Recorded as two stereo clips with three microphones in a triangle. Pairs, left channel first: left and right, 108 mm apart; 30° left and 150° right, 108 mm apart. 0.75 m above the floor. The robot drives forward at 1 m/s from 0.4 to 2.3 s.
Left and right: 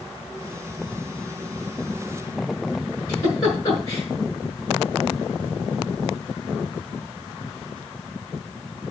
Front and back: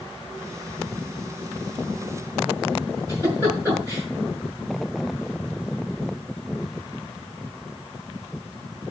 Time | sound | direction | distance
3.1 | a giggle | 145° left | 6 m